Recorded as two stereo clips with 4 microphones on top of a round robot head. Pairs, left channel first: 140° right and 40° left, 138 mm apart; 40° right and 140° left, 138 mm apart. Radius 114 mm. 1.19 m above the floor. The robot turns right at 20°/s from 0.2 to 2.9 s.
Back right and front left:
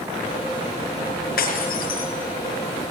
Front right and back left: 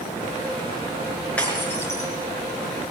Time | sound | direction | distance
1.4 | breaking glass | 120° right | 4.5 m